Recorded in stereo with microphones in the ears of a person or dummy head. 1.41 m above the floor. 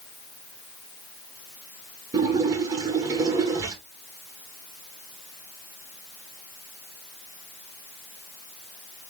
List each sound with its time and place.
2.1 s a splash: 20° right (ahead or behind), 1.4 m